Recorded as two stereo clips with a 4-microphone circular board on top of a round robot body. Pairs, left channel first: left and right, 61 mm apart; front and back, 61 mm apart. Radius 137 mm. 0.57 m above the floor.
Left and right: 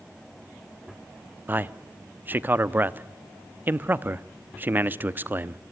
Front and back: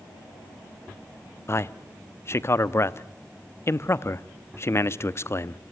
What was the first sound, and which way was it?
A man speaking, 35° right.